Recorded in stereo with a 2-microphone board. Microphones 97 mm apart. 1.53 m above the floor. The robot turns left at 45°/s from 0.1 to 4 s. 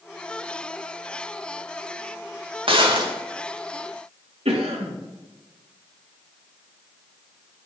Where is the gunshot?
65° right (ahead or behind), 2.5 m; by 3.1 s 45° right (ahead or behind), 2.5 m.